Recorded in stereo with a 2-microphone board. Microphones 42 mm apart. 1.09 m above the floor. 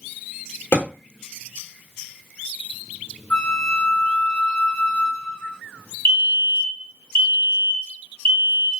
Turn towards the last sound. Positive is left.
turn(degrees=50)  # may be behind; listen again after turning